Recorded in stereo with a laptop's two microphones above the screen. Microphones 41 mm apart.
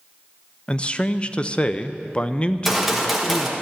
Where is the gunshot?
5° right (ahead or behind), 1.2 m.